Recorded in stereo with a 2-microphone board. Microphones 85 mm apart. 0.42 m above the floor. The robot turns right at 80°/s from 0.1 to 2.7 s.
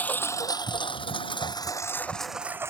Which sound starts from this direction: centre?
A lawn mower, at 0.0 s.